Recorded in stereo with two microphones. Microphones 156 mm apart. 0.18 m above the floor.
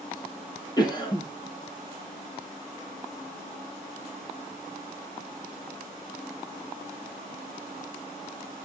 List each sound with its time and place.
0.8 s a cough: 30° left (ahead or behind), 4.5 m